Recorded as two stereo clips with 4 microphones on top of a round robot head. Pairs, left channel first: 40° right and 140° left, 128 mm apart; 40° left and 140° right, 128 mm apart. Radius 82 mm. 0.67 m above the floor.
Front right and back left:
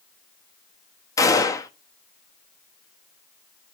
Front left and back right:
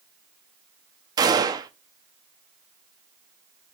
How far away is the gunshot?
About 0.8 m.